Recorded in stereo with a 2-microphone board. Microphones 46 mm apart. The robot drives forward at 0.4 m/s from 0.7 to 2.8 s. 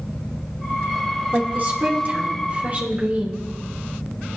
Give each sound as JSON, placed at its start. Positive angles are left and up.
{"t": 1.3, "sound": "a woman speaking", "side_deg": -45, "distance_m": 2.5}